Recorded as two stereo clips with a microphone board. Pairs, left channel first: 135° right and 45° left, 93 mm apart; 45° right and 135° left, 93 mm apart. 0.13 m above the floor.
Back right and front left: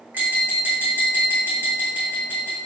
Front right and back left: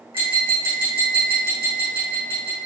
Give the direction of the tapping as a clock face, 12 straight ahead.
8 o'clock.